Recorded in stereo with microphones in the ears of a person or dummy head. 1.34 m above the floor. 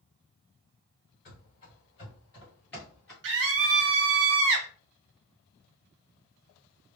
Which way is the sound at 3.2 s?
65° right (ahead or behind).